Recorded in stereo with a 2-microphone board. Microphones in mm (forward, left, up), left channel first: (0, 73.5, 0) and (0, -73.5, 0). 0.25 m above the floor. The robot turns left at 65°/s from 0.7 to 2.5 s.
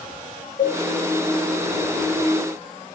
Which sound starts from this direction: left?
A cowbell, at 0.6 s.